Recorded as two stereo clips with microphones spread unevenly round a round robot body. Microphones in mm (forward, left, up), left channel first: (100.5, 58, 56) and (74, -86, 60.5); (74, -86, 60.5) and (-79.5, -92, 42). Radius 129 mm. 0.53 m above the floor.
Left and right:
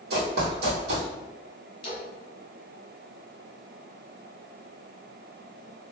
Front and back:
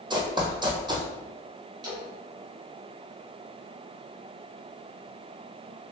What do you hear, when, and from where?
0.1 s running footsteps: 110° right, 1.1 m
1.8 s a splash: 125° left, 1.4 m